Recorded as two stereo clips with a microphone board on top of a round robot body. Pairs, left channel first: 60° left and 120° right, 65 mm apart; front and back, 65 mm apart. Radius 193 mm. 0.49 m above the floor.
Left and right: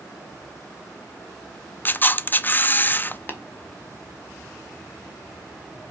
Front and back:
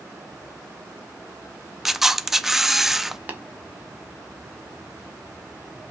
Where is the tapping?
115° left, 2 m.